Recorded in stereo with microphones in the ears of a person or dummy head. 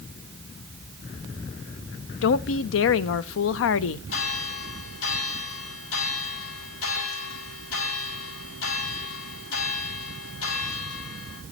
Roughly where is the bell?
Left.